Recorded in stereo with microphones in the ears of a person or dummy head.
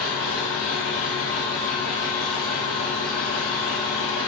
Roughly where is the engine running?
Centre.